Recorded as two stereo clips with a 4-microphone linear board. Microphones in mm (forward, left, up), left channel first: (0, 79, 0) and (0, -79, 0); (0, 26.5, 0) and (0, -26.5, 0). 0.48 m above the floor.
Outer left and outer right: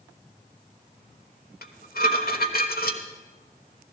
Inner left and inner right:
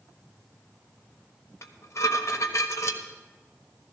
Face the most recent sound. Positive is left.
turn(degrees=70)  # may be behind; listen again after turning